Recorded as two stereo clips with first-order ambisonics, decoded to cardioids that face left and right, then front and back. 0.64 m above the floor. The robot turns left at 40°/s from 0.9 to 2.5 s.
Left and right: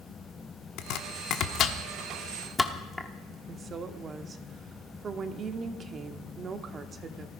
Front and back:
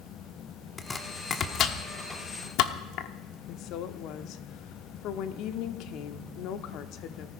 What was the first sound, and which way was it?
Chopping, 75° left.